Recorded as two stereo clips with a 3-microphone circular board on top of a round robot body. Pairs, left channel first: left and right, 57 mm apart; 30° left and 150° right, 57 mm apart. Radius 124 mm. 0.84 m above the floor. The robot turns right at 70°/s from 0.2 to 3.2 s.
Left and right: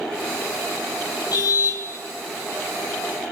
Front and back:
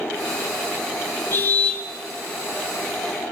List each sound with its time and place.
1.3 s a car horn: 75° left, 5 m; by 1.8 s 110° left, 5 m